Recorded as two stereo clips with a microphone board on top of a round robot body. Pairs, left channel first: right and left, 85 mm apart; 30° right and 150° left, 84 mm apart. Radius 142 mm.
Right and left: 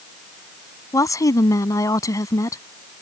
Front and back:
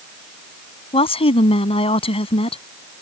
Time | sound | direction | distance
0.9 | a woman speaking | 35° right | ?